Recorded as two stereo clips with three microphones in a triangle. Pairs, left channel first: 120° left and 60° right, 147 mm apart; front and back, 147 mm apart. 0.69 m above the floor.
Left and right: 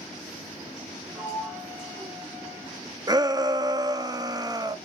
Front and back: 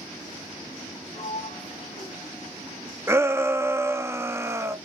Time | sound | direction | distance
1.1 | a sliding door | 20° left | 1.9 m
3.1 | a shout | 110° right | 0.7 m